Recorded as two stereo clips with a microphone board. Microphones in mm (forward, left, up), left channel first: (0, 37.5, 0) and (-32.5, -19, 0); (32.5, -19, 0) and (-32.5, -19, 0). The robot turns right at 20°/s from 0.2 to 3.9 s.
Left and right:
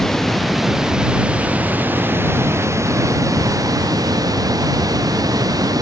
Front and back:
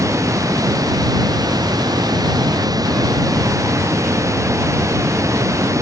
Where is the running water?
145° left; by 5.8 s 140° right.